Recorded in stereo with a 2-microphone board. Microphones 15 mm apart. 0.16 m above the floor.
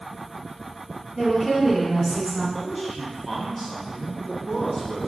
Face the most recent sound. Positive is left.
turn(degrees=0)  # may be behind; listen again after turning